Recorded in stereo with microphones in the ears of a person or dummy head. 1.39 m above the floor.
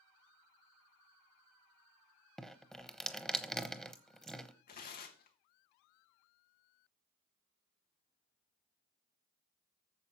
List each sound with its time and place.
2.4 s dripping: 5° right (ahead or behind), 0.9 m
4.7 s tearing paper: 45° left (ahead or behind), 1.3 m